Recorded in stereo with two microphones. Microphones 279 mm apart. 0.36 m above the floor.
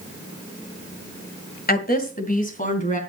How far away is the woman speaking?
About 1.8 m.